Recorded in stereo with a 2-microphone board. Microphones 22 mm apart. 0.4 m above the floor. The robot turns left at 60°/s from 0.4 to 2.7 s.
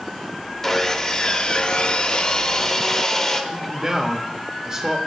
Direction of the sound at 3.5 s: 25° right (ahead or behind).